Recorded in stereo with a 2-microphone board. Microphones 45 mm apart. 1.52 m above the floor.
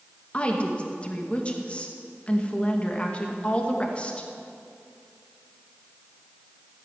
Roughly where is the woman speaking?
Left.